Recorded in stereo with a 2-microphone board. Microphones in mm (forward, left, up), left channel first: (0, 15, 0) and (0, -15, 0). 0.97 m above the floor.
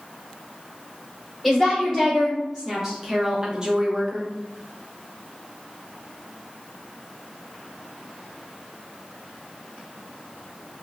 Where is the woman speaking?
Centre (ahead or behind), 1.4 m; by 4.3 s 20° right (ahead or behind), 0.9 m.